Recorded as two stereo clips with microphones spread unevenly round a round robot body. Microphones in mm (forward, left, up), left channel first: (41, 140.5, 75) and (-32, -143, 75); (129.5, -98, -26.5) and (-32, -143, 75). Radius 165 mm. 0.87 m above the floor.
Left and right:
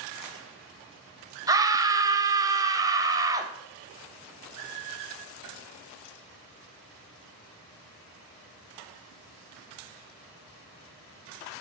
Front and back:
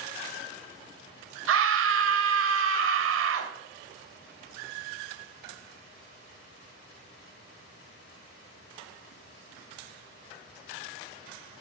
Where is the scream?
Straight behind, 0.9 m.